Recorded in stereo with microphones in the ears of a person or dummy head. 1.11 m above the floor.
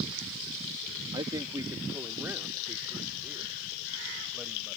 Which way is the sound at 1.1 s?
25° right (ahead or behind).